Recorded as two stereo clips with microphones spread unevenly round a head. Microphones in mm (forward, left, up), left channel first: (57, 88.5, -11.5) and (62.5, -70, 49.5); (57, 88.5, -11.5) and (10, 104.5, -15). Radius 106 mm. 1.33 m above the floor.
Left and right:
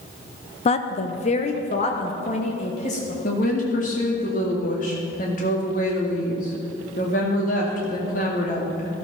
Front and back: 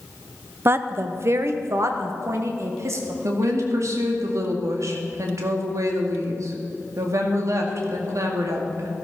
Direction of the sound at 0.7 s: 125° left.